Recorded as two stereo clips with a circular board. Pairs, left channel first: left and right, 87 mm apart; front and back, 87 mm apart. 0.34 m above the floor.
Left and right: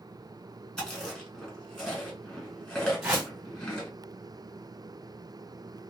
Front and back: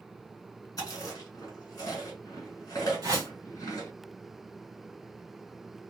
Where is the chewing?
15° left, 1.7 m.